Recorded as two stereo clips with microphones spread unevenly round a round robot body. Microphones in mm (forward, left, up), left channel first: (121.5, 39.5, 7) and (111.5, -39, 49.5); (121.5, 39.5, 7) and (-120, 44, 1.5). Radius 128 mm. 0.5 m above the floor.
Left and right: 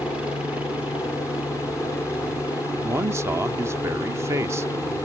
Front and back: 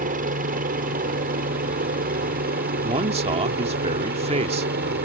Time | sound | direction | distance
0.0 | a helicopter | 155° left | ?
2.8 | a man speaking | straight behind | ?